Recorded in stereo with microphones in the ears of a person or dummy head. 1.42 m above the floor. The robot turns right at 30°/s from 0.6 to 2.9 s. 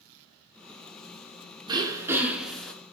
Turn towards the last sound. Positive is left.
turn(degrees=15)